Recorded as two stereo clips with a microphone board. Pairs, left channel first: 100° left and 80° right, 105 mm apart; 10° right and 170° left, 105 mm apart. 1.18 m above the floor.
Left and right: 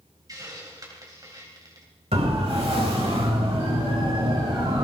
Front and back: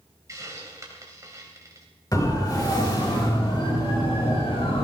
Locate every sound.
0.3 s a hiss: 130° right, 3.5 m
2.1 s a siren: 65° right, 5.5 m; by 4.8 s 35° right, 5 m